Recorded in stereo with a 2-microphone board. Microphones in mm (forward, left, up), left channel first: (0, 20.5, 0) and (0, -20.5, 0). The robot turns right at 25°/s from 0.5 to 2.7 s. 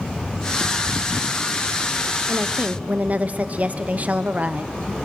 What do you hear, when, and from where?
2.3 s a woman speaking: 50° right (ahead or behind), 0.8 m; by 4.7 s 40° right (ahead or behind), 0.8 m